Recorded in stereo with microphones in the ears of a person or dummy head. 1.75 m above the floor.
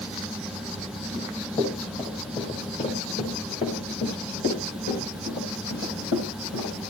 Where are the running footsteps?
20° left (ahead or behind), 5 m; by 6.9 s 60° left (ahead or behind), 5 m.